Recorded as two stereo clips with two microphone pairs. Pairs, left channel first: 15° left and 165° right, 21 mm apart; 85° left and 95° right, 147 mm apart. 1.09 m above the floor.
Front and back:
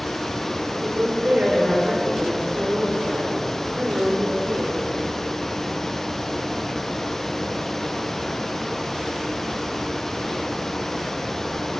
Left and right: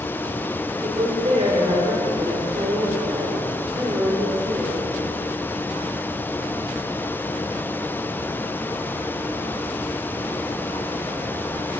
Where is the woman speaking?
140° right, 4.5 m; by 5.0 s 170° right, 4 m.